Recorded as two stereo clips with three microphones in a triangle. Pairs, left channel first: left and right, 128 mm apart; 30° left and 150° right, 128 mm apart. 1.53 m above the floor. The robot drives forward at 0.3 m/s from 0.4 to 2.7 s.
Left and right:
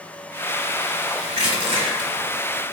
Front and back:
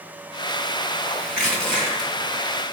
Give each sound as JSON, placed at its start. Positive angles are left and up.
{"t": 1.4, "sound": "crushing", "azimuth_deg": -55, "distance_m": 2.5}